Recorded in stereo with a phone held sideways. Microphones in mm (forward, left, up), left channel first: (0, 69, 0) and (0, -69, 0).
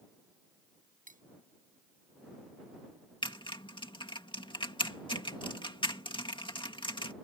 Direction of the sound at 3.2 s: 35° left (ahead or behind).